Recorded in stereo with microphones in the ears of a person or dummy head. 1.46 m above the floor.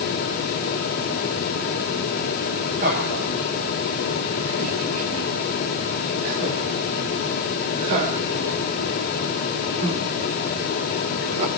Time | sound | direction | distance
2.8 | laughter | 45° right (ahead or behind) | 9.5 m